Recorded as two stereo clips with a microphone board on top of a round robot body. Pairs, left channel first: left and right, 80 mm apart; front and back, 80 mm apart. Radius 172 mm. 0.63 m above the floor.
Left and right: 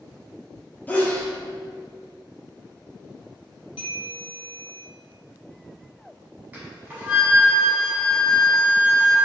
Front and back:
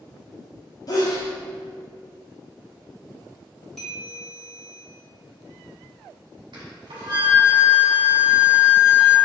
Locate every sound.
0.9 s a sneeze: 25° left, 0.7 m
3.8 s a bell: 85° left, 1.0 m
6.5 s a flute: 160° right, 0.9 m